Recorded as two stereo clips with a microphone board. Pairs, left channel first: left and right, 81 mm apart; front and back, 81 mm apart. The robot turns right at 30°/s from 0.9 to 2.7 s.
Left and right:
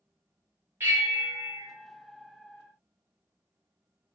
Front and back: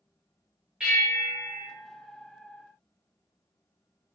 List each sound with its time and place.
0.8 s a bell: 110° right, 0.8 m; by 1.7 s 85° right, 0.8 m